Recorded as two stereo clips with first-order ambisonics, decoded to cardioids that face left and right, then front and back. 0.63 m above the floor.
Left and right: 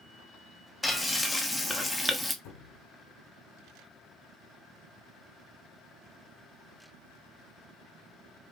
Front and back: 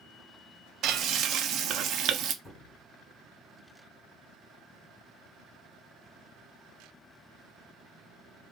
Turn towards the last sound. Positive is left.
turn(degrees=85)